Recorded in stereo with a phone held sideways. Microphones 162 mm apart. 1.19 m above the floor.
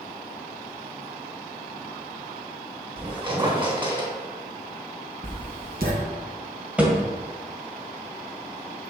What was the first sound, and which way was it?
A squeak, 30° right (ahead or behind).